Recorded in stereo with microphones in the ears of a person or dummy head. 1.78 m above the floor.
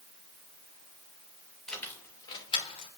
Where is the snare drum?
I don't hear a snare drum.